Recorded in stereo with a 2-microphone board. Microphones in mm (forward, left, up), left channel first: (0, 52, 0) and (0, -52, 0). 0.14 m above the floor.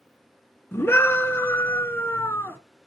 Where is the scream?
20° left (ahead or behind), 1.2 m.